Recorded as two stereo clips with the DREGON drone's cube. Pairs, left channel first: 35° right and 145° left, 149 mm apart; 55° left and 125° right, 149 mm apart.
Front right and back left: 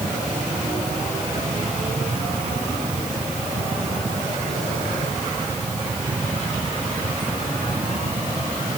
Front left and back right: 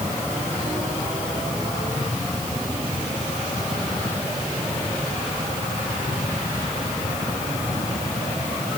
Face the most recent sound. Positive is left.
No sound to turn to.